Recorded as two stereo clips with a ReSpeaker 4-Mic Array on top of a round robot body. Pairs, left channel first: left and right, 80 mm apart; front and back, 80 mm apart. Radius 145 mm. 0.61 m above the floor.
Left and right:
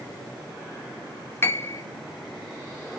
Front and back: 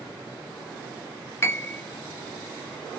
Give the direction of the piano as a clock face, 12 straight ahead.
11 o'clock.